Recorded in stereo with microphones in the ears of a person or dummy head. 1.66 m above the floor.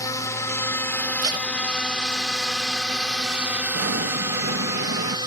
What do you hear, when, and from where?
0.0 s a drone: 20° left (ahead or behind); by 5.3 s 25° right (ahead or behind)
1.2 s tape being pulled: 25° right (ahead or behind)
3.7 s an explosion: 60° right (ahead or behind)